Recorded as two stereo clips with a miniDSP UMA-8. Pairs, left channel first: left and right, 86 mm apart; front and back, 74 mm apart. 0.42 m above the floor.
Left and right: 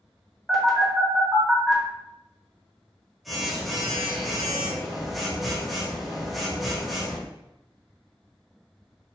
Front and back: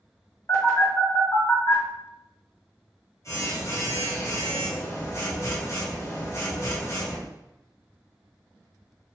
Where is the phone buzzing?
Straight ahead, 1.6 m.